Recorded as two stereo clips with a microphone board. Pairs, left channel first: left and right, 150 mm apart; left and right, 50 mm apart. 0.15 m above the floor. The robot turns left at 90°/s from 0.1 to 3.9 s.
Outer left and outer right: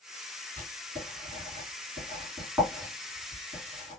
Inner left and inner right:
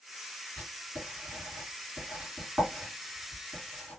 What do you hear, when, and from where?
0.6 s writing: 10° left (ahead or behind), 2 m; by 4.0 s 45° left (ahead or behind), 2 m